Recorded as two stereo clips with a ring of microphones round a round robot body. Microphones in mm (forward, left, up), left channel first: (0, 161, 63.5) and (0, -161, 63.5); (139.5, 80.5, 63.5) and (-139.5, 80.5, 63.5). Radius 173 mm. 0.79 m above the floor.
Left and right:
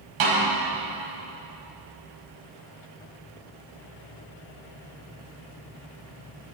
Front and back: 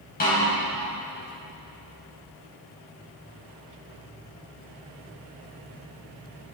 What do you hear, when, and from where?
0.2 s a snare drum: 65° right, 5 m